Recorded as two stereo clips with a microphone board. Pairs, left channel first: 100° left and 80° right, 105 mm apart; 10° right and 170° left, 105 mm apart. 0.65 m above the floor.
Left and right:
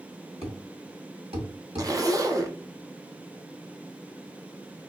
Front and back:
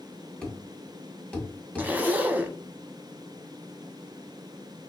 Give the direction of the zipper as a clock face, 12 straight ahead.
4 o'clock.